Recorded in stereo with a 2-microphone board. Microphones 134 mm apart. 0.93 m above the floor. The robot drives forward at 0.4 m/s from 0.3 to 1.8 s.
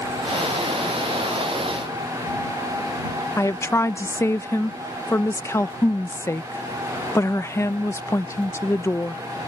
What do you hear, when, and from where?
3.4 s a woman speaking: 20° left (ahead or behind)